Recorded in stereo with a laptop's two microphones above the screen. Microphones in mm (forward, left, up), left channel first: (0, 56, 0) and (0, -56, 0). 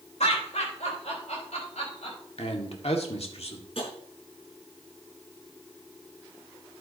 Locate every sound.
0.2 s laughter: 85° left, 3.5 m; by 2.2 s 75° left (ahead or behind), 5.5 m
2.4 s a man speaking: 65° left (ahead or behind), 1.9 m
3.8 s tapping: 60° left (ahead or behind), 5 m